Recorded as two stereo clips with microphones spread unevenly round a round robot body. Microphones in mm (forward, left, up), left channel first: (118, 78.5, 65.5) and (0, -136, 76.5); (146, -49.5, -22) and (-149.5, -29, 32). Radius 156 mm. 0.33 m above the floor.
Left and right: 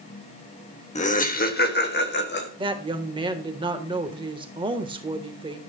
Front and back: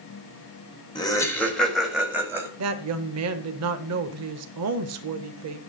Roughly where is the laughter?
Ahead left.